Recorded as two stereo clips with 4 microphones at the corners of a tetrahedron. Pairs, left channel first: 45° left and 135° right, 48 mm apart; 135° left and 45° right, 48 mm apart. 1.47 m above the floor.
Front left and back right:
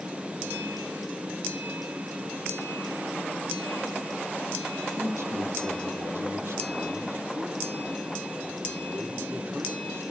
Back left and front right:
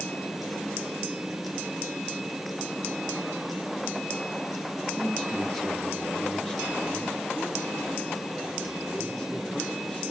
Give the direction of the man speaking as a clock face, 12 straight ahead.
5 o'clock.